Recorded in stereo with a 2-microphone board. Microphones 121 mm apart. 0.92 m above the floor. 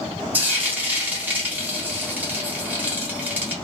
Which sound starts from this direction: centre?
Frying, at 0.3 s.